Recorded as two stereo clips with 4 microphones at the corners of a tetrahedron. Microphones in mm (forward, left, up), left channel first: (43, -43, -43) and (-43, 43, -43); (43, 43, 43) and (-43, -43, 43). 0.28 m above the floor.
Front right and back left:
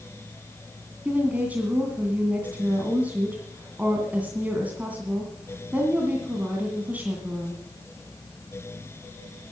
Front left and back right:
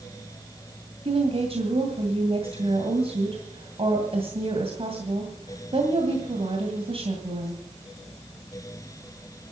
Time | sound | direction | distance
1.1 | a woman speaking | 150° right | 2 m